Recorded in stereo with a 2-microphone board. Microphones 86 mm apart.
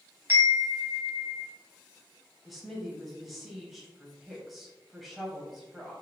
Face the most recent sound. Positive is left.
turn(degrees=0)  # may be behind; listen again after turning